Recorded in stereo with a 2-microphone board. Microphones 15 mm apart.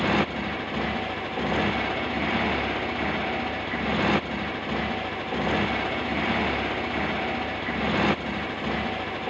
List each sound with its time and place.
0.0 s a motorcycle: 10° right (ahead or behind)